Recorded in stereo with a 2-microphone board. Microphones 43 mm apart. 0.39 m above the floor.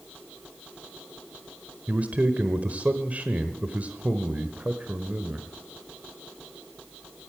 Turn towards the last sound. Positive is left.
turn(degrees=-35)  # may be behind; listen again after turning